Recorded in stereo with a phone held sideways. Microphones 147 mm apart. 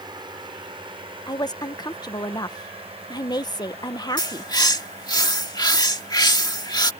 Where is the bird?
30° left (ahead or behind).